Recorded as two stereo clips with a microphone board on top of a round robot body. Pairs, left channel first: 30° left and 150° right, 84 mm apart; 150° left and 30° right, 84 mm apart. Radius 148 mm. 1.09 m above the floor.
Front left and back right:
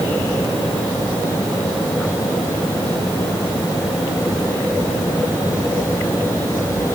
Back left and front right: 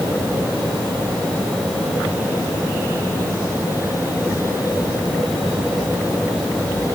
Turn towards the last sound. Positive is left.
No sound to turn to.